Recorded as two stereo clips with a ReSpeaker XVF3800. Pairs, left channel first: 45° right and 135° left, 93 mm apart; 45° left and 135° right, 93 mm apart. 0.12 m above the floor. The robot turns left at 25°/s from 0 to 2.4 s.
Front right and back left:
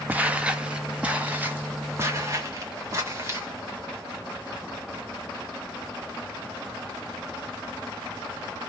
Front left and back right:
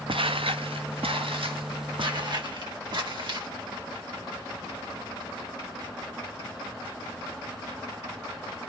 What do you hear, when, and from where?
0.1 s footsteps: 155° right, 0.7 m; by 3.5 s 165° right, 2.5 m